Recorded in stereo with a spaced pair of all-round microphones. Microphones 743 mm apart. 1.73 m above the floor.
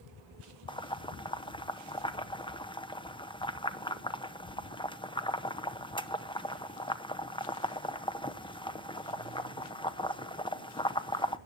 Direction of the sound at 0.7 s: 5° left (ahead or behind).